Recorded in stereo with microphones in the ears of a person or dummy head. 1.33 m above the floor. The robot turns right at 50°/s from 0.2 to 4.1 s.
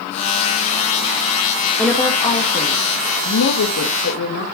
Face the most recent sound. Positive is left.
turn(degrees=120)